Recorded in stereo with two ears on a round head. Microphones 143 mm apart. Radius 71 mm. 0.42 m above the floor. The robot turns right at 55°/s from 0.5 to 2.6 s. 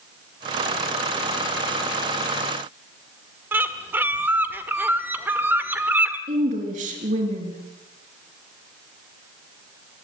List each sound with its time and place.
3.5 s a bird: 15° right (ahead or behind), 1.3 m
6.3 s a woman speaking: 50° right (ahead or behind), 5.5 m